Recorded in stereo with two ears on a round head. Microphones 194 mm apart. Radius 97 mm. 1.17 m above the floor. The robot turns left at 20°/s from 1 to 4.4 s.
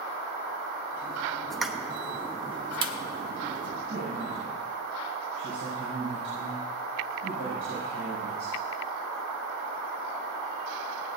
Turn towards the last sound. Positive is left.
turn(degrees=-65)  # may be behind; listen again after turning